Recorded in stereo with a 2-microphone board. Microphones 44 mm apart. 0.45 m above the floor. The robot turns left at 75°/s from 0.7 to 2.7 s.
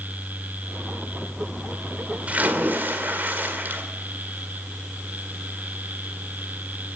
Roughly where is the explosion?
No explosion in this recording.